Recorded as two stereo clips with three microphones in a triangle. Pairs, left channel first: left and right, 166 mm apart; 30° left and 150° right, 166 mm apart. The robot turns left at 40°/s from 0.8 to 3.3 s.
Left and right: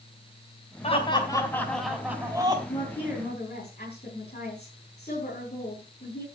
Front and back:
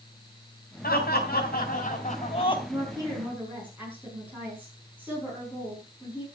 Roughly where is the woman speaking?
Behind left.